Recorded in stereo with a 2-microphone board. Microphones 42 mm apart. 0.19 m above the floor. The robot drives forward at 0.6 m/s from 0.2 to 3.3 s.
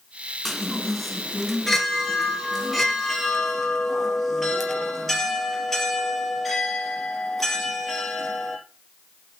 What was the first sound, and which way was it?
A chime, 5° left (ahead or behind).